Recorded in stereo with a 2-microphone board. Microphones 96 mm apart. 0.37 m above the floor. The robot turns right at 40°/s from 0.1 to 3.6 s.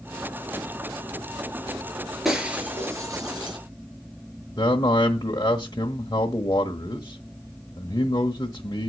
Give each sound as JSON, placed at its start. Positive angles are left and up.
{"t": 2.2, "sound": "breaking glass", "side_deg": 0, "distance_m": 4.5}
{"t": 4.6, "sound": "a man speaking", "side_deg": 40, "distance_m": 1.3}